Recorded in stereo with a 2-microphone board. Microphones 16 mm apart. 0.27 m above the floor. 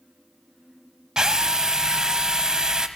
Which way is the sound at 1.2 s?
40° right (ahead or behind).